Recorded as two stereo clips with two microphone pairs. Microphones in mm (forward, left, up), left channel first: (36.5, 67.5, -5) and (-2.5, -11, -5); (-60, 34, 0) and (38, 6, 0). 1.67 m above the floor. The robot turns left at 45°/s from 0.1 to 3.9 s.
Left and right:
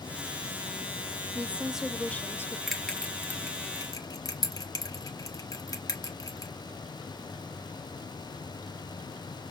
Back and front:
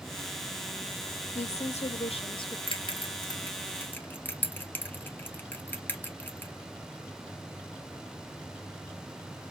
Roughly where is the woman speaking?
Behind.